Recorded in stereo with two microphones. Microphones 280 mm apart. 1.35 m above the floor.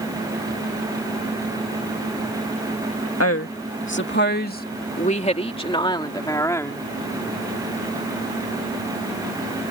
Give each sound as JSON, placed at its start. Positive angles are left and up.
{"t": 3.2, "sound": "a woman speaking", "side_deg": 55}